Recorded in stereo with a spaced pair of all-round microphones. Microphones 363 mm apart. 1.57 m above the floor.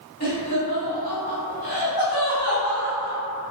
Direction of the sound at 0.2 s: 45° left (ahead or behind).